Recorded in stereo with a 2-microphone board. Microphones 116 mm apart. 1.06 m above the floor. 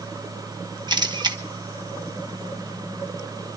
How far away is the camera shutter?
About 1.2 m.